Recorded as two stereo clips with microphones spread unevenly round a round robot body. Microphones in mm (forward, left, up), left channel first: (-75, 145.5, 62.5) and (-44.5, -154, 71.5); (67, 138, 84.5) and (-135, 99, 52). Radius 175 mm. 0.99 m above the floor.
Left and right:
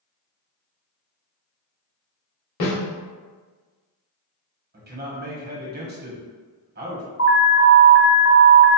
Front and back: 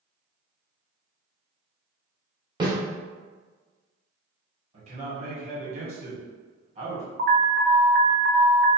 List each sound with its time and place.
2.6 s a snare drum: 120° left, 1.7 m
4.7 s a man speaking: 135° right, 1.1 m
7.2 s an alarm: 150° left, 0.7 m